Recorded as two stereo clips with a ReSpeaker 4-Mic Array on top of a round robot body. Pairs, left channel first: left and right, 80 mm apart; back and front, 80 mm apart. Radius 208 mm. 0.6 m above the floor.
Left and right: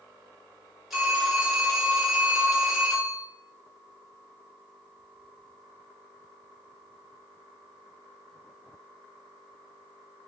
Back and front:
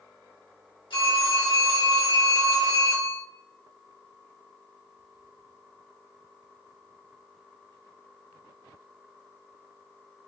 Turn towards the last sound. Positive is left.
turn(degrees=180)